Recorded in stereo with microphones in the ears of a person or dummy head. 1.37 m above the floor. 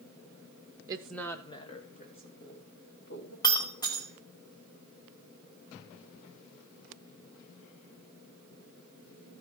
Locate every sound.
0.9 s a woman speaking: 20° right (ahead or behind), 0.8 m; by 3.3 s 50° left (ahead or behind), 3.5 m
3.4 s breaking glass: 15° left (ahead or behind), 2 m